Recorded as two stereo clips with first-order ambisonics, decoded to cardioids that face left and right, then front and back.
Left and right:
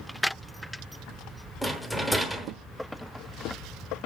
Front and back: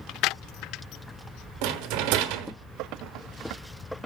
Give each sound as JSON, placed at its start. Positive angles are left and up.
{"t": 1.6, "sound": "a rattle", "azimuth_deg": 180, "distance_m": 0.9}